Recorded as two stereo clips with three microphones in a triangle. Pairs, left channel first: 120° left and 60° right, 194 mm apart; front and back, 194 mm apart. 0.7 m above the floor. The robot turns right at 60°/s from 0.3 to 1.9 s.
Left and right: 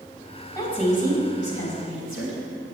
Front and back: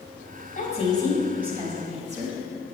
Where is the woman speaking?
45° left, 3.5 m; by 2.4 s 125° left, 3.5 m.